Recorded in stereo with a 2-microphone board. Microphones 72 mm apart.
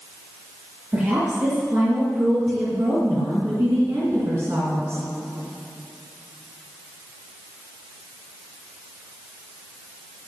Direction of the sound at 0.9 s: 25° right (ahead or behind).